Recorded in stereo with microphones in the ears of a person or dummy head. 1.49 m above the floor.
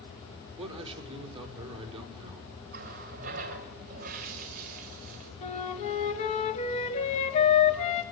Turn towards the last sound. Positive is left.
turn(degrees=35)  # may be behind; listen again after turning